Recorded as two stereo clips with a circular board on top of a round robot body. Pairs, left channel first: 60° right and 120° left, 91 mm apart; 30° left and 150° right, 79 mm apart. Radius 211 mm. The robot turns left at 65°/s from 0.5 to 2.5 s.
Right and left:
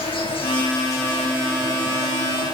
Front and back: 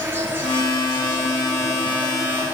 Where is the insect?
85° right, 7.5 m; by 2.5 s 145° left, 7.5 m.